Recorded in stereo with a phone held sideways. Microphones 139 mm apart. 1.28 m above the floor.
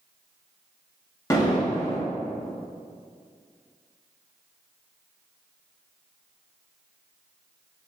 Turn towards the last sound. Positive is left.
turn(degrees=25)  # may be behind; listen again after turning